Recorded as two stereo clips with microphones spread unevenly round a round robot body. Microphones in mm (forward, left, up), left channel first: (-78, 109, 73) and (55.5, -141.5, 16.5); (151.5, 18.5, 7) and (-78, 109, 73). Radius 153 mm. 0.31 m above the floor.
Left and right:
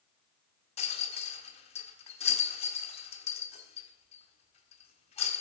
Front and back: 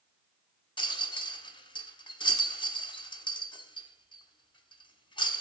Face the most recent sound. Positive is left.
turn(degrees=45)